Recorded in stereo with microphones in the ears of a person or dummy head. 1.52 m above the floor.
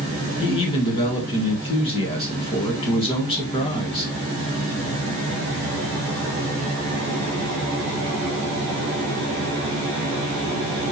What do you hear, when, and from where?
0.4 s a man speaking: 30° left (ahead or behind), 1.5 m